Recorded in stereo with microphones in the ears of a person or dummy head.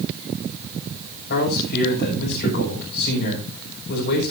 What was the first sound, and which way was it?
A man speaking, 60° left (ahead or behind).